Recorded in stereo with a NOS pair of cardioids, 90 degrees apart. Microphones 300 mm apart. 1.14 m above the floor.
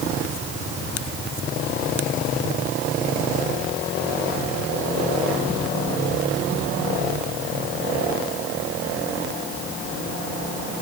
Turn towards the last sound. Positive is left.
No sound to turn to.